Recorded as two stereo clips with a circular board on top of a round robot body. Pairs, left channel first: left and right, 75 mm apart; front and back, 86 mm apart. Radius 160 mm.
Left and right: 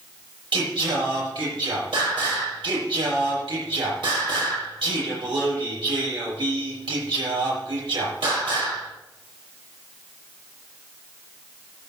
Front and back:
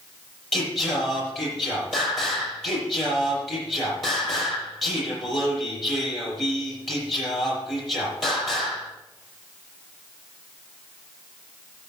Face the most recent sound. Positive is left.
turn(degrees=-85)